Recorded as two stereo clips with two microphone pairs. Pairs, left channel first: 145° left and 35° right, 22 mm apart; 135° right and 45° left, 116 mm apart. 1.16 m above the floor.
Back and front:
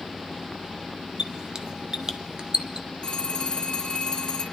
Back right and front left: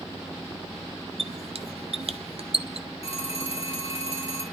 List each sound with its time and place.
1.2 s a squeak: 20° left, 0.6 m
3.0 s a phone ringing: 160° right, 2 m